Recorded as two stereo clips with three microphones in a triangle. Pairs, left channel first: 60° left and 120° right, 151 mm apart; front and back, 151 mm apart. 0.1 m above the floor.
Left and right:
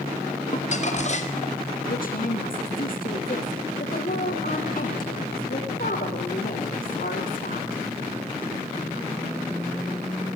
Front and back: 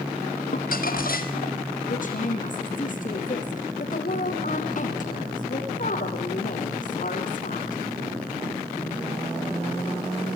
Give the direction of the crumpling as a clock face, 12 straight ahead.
11 o'clock.